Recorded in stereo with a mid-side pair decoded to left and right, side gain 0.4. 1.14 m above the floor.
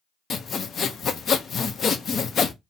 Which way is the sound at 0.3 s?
60° left.